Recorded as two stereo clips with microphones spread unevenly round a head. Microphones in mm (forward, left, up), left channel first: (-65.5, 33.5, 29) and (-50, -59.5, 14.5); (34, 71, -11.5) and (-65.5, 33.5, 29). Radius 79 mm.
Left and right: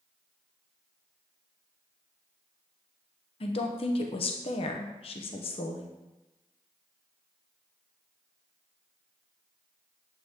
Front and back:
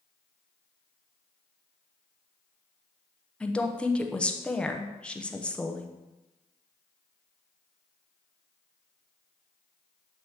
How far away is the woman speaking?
About 1.0 m.